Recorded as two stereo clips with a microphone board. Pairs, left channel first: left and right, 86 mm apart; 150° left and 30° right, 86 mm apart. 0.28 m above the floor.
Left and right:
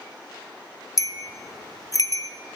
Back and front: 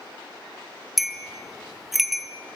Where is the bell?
60° left, 1.7 m.